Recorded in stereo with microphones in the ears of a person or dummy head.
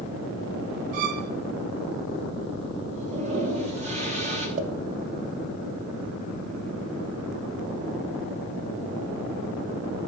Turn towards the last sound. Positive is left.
turn(degrees=-45)  # may be behind; listen again after turning